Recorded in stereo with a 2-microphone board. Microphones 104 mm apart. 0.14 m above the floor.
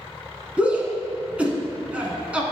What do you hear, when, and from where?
0.6 s a shout: 10° right (ahead or behind), 1.1 m